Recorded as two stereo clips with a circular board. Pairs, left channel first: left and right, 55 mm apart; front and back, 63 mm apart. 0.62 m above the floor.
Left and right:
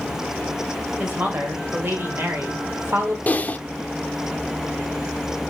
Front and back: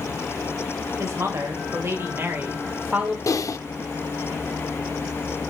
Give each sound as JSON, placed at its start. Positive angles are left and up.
{"t": 1.0, "sound": "a woman speaking", "azimuth_deg": -145, "distance_m": 3.5}
{"t": 3.3, "sound": "typing on a keyboard", "azimuth_deg": 30, "distance_m": 0.6}